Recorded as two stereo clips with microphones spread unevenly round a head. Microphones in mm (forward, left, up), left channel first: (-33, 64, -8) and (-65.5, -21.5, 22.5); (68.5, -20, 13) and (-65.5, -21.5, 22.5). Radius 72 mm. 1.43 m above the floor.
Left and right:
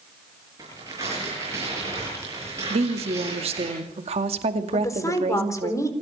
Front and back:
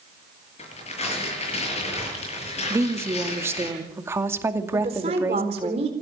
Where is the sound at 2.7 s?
110° right, 2.5 m.